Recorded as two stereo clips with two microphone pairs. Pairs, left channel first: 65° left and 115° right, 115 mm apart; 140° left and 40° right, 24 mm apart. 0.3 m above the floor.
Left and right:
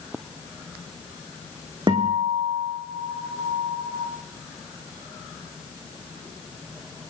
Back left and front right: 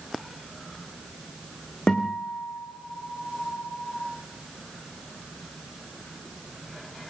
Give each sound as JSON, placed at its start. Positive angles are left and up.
{"t": 1.9, "sound": "a guitar", "azimuth_deg": -165, "distance_m": 6.0}